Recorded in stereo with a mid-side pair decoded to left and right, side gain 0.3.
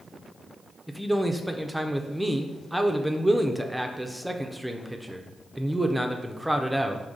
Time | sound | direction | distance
0.9 | a man speaking | 5° right | 0.5 m